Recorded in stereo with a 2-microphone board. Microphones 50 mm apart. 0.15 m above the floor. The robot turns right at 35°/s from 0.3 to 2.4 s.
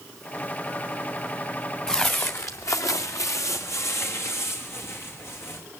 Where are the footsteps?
15° left (ahead or behind), 1.0 m; by 5.6 s 50° left (ahead or behind), 3 m.